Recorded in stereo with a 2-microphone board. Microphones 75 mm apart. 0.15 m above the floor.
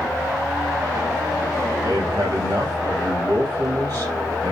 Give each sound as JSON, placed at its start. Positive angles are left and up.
{"t": 1.8, "sound": "a man speaking", "side_deg": -70, "distance_m": 4.0}